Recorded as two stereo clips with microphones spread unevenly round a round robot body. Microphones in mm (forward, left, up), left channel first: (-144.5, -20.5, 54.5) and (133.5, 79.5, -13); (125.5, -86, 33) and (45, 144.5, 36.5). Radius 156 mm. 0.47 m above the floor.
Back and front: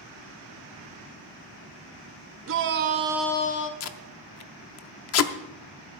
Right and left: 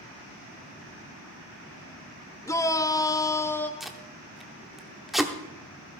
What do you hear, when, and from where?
2.5 s a shout: 5° left, 1.1 m; by 3.7 s 145° right, 0.7 m
3.8 s tape being pulled: 160° right, 0.7 m